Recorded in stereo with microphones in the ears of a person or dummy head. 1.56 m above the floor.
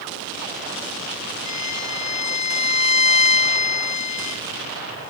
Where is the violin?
60° left (ahead or behind), 0.9 m.